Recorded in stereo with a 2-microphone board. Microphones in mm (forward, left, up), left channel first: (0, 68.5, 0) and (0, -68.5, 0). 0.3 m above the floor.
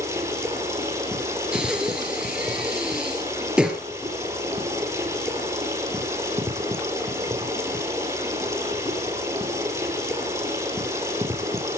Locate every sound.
0.0 s running water: 20° right (ahead or behind), 6 m
1.5 s breathing: 5° right (ahead or behind), 3.5 m